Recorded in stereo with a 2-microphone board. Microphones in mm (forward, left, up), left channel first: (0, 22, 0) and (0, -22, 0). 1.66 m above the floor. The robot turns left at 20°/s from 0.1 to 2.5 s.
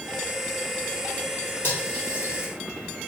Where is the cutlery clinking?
45° left (ahead or behind), 3.5 m; by 2.5 s 30° left (ahead or behind), 3.5 m.